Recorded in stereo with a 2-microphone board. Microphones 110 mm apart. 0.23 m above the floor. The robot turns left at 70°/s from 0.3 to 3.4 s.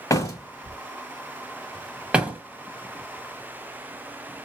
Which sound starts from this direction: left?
A door slam, at 0.1 s.